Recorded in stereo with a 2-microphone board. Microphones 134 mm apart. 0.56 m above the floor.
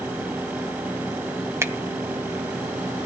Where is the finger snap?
20° right (ahead or behind), 1.6 m.